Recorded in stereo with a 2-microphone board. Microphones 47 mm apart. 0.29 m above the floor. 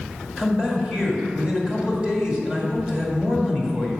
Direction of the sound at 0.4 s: 20° right (ahead or behind).